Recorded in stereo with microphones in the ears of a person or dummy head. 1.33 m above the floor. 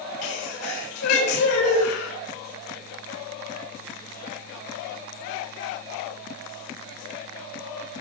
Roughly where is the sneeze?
Left.